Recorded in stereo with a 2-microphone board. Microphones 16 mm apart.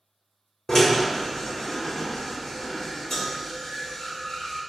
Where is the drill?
35° left (ahead or behind), 0.8 m.